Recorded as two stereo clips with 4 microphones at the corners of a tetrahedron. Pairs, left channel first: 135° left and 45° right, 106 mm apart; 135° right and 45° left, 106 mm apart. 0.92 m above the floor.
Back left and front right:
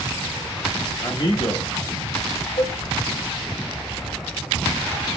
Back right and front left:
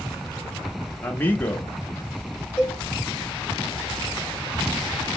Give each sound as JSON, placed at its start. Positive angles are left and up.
{"t": 1.0, "sound": "a man speaking", "azimuth_deg": 160, "distance_m": 1.2}
{"t": 2.6, "sound": "a cowbell", "azimuth_deg": 150, "distance_m": 3.0}